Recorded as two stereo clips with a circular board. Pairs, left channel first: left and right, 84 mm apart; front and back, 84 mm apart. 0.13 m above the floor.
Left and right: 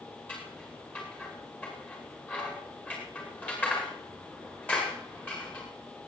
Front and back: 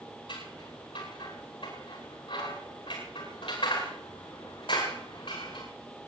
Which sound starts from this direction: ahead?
Scissors, at 0.3 s.